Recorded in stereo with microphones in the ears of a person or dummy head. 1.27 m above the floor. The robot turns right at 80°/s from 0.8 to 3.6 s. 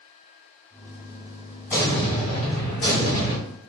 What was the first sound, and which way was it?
An explosion, 15° left.